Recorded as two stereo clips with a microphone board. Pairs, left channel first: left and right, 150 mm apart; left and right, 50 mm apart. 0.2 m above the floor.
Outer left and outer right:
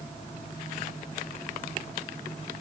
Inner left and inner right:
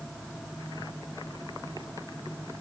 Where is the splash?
I don't hear a splash.